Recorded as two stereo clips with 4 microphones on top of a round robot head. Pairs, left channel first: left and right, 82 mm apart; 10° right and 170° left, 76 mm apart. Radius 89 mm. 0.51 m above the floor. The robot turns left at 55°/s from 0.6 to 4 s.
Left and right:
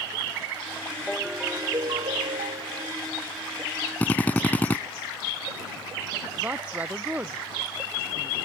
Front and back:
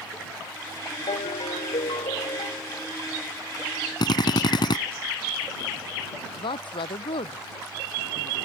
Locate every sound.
1.1 s a ringtone: 5° left; by 2.9 s 95° right
4.0 s a drill: 15° left
6.4 s a woman speaking: 15° right